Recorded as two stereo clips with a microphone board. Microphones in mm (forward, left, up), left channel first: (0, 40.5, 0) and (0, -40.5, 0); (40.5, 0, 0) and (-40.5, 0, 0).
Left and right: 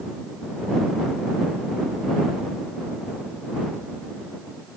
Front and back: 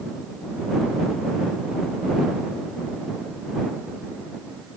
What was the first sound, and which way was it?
Only background noise.